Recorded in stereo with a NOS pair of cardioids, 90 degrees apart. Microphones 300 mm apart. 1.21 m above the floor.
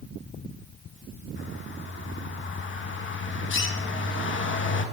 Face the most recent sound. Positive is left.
turn(degrees=40)